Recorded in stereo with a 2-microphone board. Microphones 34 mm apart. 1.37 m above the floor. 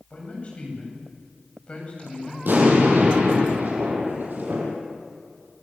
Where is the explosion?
60° right (ahead or behind), 7 m.